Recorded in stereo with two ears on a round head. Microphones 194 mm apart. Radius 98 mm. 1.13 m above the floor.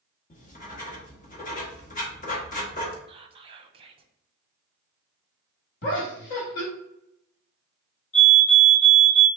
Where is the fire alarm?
30° left (ahead or behind), 1.8 m.